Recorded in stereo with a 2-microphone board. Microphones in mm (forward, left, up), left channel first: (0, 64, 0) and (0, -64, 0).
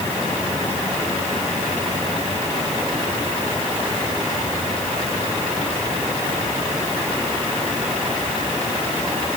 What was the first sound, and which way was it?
Only background noise.